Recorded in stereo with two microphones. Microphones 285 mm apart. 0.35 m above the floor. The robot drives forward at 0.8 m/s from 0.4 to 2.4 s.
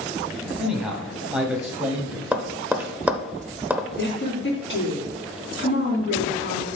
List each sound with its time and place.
0.6 s a man speaking: 5° right (ahead or behind), 2 m
2.3 s tapping: 5° right (ahead or behind), 0.8 m
4.0 s a woman speaking: 45° left (ahead or behind), 3 m